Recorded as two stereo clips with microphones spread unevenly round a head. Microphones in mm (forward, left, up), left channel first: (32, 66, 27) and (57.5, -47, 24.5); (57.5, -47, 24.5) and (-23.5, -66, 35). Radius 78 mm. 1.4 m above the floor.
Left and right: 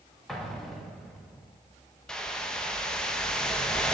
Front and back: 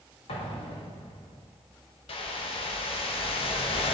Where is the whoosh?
20° left, 0.9 m.